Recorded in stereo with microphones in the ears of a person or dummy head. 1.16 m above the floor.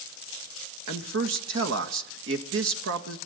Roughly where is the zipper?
I don't hear a zipper.